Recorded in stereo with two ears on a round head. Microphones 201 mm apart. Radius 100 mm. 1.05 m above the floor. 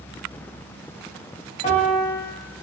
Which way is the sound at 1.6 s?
30° left (ahead or behind).